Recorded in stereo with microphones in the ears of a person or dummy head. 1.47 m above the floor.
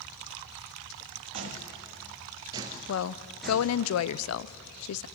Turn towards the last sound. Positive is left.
turn(degrees=85)